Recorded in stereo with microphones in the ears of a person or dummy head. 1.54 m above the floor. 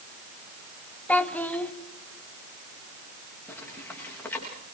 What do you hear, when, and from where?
1.1 s a child speaking: 5° left (ahead or behind), 1.5 m
3.5 s footsteps: 10° left (ahead or behind), 9.5 m